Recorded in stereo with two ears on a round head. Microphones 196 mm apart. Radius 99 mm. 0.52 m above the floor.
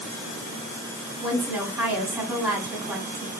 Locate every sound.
1.2 s a woman speaking: 5° right (ahead or behind), 1.3 m